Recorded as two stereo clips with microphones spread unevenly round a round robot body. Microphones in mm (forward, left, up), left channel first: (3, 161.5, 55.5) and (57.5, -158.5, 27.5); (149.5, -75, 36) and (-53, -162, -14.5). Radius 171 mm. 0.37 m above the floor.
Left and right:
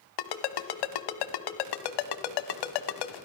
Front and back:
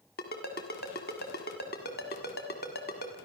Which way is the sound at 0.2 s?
90° left.